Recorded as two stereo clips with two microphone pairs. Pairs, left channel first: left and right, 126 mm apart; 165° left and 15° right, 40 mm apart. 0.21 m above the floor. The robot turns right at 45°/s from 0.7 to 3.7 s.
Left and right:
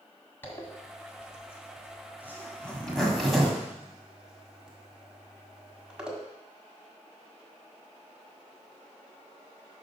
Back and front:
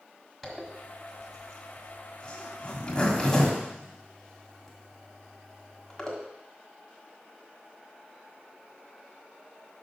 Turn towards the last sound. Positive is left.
turn(degrees=-165)